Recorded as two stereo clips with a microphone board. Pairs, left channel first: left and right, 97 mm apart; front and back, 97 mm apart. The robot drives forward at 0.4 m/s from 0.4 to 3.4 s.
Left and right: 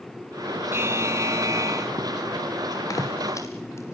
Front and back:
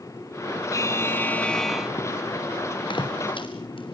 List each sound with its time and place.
0.7 s a buzzer: 35° right, 0.7 m; by 1.9 s 100° right, 0.6 m
2.9 s footsteps: 35° left, 5 m; by 3.9 s 25° left, 5.5 m